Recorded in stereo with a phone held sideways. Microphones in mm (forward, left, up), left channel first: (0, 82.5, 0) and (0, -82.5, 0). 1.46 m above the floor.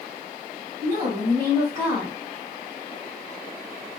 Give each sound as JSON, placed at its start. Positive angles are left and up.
{"t": 0.8, "sound": "a woman speaking", "side_deg": -40, "distance_m": 2.5}